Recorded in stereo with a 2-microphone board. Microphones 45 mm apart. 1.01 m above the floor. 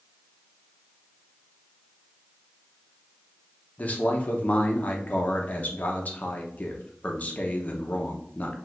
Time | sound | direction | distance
3.8 | a man speaking | 35° left (ahead or behind) | 0.7 m